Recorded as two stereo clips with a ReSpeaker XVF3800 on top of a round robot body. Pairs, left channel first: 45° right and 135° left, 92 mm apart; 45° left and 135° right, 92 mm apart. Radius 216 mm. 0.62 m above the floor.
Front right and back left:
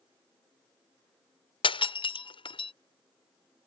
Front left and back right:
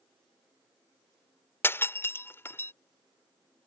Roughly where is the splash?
No splash in this recording.